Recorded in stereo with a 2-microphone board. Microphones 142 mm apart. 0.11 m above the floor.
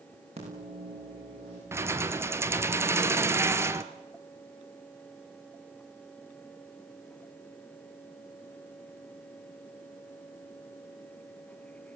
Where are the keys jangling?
15° right (ahead or behind), 1.2 m.